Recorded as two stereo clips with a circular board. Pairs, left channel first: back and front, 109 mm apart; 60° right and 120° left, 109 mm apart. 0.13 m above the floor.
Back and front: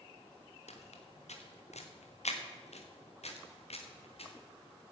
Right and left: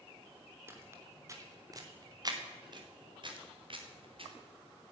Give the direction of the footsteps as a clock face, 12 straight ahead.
6 o'clock.